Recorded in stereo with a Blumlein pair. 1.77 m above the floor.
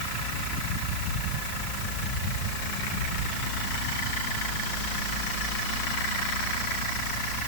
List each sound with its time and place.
Only background noise.